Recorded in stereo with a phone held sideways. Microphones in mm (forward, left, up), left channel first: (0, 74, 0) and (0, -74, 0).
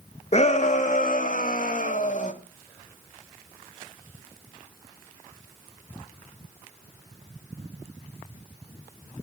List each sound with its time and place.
0.3 s a shout: 50° left (ahead or behind), 1.4 m; by 2.3 s 55° left (ahead or behind), 2 m